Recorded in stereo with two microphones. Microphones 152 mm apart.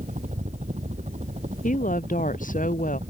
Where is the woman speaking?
60° left (ahead or behind).